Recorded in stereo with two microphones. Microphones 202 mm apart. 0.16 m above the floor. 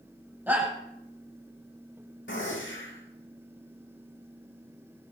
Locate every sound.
0.5 s a shout: 10° right (ahead or behind), 9 m
2.3 s a gunshot: 75° left (ahead or behind), 7.5 m